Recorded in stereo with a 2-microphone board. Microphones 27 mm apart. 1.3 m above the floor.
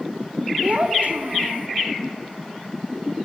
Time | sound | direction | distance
0.6 | a child speaking | 55° right (ahead or behind) | 2 m